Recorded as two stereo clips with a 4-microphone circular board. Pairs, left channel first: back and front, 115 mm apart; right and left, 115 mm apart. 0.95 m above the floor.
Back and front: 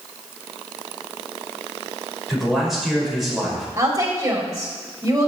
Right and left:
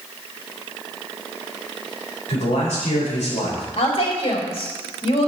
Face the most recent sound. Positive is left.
turn(degrees=-60)